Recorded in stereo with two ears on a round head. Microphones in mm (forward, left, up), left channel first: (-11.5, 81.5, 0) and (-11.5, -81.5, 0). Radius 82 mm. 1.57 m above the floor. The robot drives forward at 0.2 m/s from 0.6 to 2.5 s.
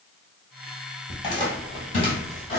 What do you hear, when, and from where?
1.1 s footsteps: 25° left (ahead or behind), 1.7 m; by 2.6 s 35° left (ahead or behind), 2 m